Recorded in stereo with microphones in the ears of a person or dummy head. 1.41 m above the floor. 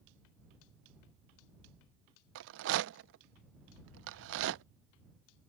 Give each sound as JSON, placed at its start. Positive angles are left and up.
{"t": 2.4, "sound": "a rattle", "side_deg": -70}